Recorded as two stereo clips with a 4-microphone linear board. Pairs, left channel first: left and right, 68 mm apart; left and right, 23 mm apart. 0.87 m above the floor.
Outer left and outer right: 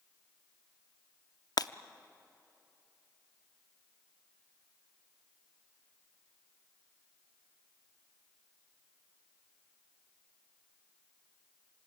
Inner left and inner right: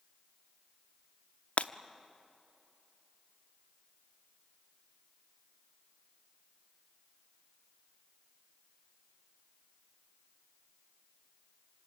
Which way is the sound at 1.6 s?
70° left (ahead or behind).